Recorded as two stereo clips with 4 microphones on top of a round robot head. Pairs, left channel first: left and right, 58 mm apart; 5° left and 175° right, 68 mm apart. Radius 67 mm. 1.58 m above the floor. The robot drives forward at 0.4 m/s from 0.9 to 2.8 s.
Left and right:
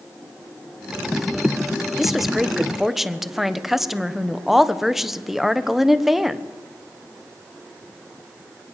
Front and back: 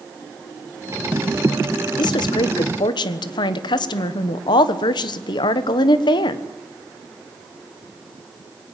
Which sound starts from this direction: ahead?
A woman speaking, at 2.0 s.